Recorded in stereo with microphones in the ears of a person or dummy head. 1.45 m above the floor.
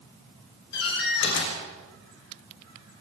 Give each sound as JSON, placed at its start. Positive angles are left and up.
{"t": 0.7, "sound": "a door slam", "side_deg": 70, "distance_m": 5.5}